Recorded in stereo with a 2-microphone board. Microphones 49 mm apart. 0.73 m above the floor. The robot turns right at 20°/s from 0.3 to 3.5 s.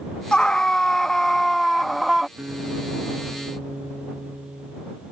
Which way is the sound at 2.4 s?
45° right (ahead or behind).